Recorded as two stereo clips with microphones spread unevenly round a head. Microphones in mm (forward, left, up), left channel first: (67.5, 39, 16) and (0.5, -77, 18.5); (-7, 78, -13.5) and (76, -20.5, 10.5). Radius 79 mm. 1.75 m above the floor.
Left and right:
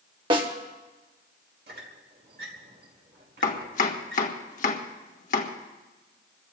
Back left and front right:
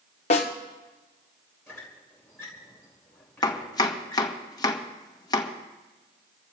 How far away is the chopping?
About 1.4 m.